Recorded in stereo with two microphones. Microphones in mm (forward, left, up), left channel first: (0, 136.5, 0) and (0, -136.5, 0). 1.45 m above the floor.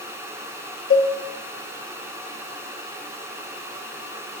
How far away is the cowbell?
About 0.6 m.